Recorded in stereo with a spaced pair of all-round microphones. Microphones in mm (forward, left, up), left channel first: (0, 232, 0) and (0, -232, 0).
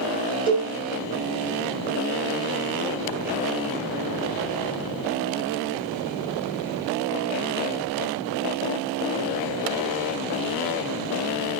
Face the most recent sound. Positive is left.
turn(degrees=10)  # may be behind; listen again after turning